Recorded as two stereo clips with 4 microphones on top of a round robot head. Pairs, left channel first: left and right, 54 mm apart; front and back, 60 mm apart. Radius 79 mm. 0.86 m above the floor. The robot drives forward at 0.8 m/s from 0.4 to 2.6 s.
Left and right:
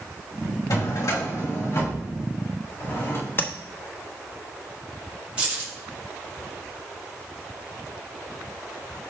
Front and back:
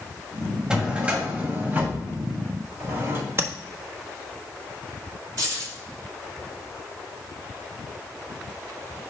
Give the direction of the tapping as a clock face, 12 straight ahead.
8 o'clock.